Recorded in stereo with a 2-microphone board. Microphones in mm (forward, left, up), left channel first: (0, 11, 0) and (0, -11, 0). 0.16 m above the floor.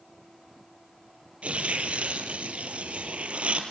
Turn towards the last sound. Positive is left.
turn(degrees=-70)  # may be behind; listen again after turning